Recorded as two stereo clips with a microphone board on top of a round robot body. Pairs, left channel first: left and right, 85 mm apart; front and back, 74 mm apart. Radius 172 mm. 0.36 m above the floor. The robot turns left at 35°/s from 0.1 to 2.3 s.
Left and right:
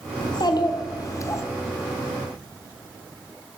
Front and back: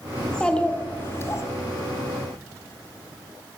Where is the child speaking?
85° left, 1.4 m; by 1.4 s 40° left, 1.4 m.